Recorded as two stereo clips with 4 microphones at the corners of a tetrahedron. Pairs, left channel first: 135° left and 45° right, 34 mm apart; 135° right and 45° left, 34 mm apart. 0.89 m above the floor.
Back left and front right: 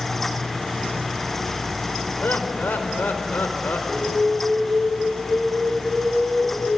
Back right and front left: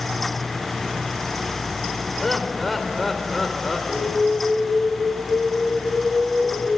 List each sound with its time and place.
2.2 s laughter: 140° left, 4 m
3.9 s an alarm: 115° right, 4.5 m